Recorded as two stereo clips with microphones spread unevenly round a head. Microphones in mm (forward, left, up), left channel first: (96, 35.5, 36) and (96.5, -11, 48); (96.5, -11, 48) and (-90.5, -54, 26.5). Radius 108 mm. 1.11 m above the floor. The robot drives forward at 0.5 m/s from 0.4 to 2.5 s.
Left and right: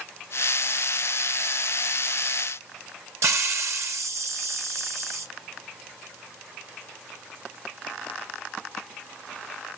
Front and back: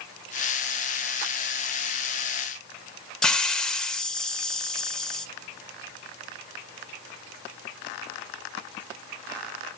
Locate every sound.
3.2 s a hiss: 75° right, 1.1 m